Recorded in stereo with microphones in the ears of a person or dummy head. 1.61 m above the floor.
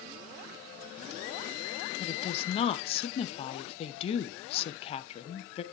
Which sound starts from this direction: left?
A woman speaking, at 2.0 s.